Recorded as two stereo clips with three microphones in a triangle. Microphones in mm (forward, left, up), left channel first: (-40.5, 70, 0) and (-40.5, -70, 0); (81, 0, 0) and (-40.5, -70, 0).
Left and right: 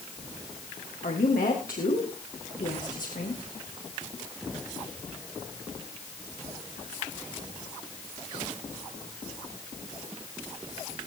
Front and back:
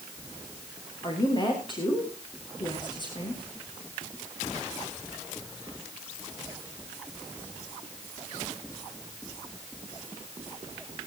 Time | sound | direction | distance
1.0 | a woman speaking | 85° left | 8.5 m